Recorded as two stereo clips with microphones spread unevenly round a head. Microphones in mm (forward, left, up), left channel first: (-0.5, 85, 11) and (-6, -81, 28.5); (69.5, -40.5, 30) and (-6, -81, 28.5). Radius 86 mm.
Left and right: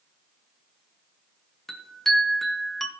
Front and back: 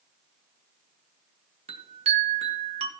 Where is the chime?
175° left, 1.5 m.